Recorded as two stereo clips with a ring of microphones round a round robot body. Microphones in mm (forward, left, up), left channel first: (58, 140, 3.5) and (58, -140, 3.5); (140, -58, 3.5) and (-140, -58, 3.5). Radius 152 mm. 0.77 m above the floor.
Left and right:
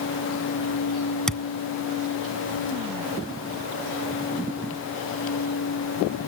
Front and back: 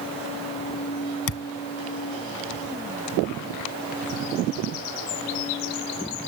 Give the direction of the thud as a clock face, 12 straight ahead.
12 o'clock.